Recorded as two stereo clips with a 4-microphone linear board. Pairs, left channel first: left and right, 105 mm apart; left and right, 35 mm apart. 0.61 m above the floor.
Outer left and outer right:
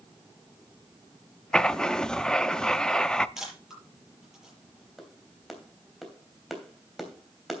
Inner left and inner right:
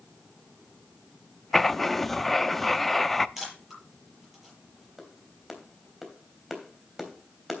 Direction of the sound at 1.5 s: 5° left (ahead or behind).